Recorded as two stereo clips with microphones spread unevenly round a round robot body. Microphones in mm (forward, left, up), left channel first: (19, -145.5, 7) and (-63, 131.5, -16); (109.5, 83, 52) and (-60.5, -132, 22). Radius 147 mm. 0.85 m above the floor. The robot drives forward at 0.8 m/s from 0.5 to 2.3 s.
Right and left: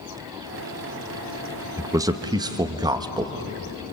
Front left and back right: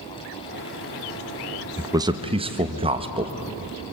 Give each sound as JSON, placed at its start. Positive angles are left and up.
{"t": 1.8, "sound": "a man speaking", "azimuth_deg": 170, "distance_m": 1.0}